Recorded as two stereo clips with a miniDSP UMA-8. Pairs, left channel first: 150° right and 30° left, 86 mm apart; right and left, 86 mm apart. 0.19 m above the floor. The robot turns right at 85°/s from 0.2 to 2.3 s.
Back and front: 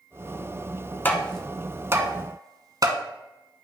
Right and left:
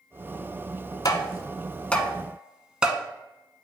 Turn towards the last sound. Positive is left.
turn(degrees=15)